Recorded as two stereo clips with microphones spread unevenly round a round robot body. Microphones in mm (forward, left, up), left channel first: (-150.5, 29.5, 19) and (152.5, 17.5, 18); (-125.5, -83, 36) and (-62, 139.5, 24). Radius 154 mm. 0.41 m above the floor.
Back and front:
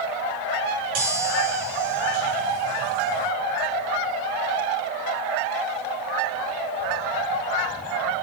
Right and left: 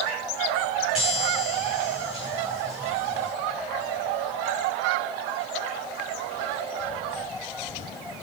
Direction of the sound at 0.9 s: 15° right.